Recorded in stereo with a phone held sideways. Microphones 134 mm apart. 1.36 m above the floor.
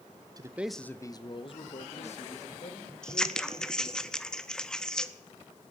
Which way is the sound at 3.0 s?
5° left (ahead or behind).